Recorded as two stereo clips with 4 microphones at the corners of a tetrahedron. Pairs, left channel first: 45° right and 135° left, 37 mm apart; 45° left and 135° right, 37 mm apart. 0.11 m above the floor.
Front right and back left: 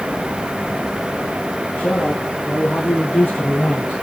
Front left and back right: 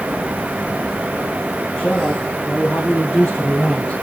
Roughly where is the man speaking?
Ahead.